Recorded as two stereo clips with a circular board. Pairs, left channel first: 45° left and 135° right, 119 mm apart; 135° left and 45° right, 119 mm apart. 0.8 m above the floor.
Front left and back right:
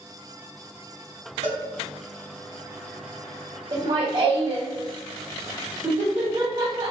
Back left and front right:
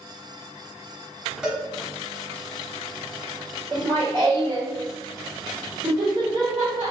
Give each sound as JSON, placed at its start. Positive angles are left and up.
{"t": 1.4, "sound": "a cowbell", "azimuth_deg": -130, "distance_m": 1.1}
{"t": 3.7, "sound": "laughter", "azimuth_deg": -105, "distance_m": 0.7}